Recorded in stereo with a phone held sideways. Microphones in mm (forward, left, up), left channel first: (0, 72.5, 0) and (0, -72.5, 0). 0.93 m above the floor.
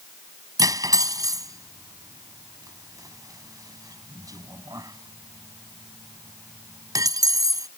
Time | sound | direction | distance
0.6 | cutlery clinking | 25° right (ahead or behind) | ?